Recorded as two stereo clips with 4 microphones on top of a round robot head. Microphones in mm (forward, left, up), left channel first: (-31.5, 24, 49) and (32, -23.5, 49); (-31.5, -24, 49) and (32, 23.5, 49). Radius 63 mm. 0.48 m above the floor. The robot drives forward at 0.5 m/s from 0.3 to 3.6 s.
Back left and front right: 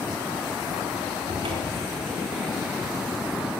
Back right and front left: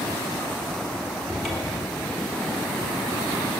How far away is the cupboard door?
About 3.5 m.